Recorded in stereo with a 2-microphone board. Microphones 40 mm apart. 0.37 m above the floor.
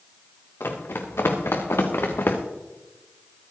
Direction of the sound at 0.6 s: 80° left.